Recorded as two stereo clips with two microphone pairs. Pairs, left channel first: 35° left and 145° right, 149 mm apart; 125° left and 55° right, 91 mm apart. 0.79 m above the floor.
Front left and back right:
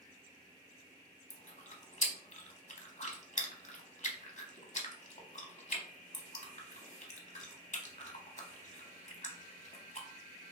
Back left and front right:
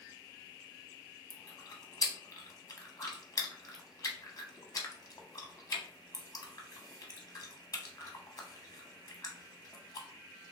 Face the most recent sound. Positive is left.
turn(degrees=75)